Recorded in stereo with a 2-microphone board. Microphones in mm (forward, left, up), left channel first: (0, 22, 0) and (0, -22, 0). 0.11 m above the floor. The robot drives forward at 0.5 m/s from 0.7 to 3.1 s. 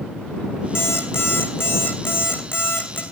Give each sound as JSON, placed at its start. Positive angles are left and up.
{"t": 0.8, "sound": "an alarm clock", "side_deg": 70, "distance_m": 3.5}